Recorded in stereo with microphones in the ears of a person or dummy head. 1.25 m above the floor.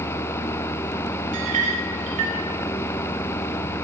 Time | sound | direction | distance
1.3 | a clink | 35° right (ahead or behind) | 0.9 m